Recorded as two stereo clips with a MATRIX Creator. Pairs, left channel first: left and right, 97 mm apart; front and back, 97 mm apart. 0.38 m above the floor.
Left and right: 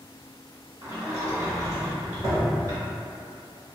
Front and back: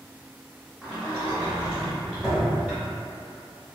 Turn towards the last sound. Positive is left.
turn(degrees=-105)